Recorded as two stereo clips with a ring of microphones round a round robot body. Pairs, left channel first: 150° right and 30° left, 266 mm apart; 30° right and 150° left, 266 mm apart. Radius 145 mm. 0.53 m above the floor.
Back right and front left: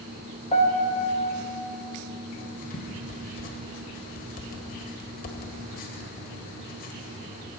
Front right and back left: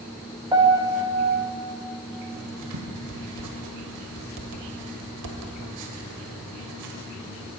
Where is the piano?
160° right, 1.3 m.